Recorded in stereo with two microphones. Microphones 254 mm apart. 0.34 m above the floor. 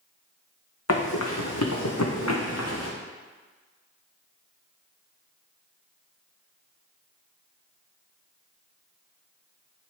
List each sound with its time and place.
0.9 s running footsteps: 65° left (ahead or behind), 1.6 m